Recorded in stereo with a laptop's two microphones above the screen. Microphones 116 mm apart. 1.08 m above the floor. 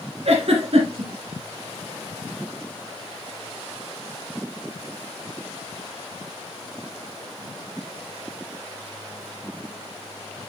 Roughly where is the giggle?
Right.